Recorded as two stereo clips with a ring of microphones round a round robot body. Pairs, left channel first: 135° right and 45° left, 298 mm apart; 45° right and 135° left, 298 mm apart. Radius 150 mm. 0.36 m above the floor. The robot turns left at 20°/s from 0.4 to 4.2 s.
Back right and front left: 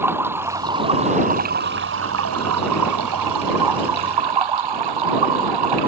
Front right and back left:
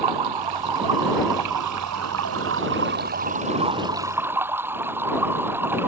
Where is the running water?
130° left; by 5.9 s 50° left.